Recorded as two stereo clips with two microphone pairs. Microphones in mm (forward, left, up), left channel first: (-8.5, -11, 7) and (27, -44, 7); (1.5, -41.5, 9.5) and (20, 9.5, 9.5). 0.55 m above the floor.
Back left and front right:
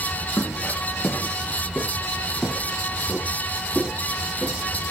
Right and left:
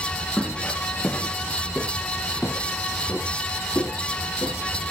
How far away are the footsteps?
About 7 m.